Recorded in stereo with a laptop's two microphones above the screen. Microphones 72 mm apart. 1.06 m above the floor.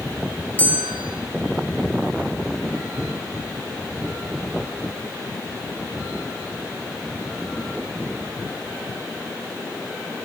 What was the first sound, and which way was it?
A bell, 25° left (ahead or behind).